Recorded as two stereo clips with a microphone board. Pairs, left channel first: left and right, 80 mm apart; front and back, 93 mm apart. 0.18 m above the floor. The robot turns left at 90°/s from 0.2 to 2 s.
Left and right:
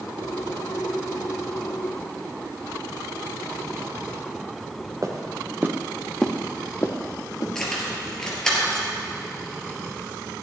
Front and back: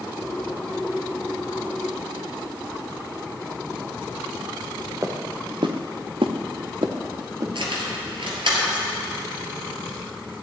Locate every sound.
5.0 s footsteps: 130° right, 1.9 m; by 7.5 s 130° left, 2.5 m
7.5 s keys jangling: 170° left, 2.5 m